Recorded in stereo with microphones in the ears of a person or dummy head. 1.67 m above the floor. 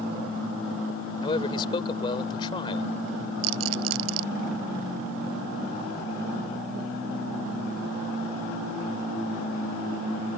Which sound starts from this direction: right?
A rattle, at 3.4 s.